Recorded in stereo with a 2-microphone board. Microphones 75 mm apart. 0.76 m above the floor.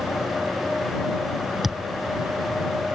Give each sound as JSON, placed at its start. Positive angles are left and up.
{"t": 1.6, "sound": "a thud", "side_deg": -5}